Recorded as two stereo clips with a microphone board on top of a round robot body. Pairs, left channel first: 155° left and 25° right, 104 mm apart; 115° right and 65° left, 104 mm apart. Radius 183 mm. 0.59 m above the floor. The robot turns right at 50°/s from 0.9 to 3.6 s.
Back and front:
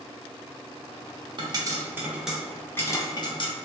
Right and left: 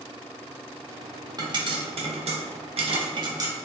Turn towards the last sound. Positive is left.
turn(degrees=130)